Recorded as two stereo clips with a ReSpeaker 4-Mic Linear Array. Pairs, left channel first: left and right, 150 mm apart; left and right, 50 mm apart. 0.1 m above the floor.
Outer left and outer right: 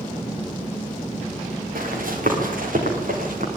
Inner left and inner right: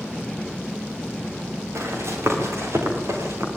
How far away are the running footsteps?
About 9 m.